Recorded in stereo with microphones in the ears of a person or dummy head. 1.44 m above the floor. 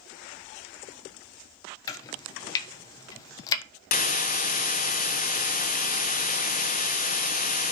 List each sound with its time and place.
1.9 s chopping: 20° left (ahead or behind), 0.9 m
3.9 s a hiss: 40° left (ahead or behind), 0.6 m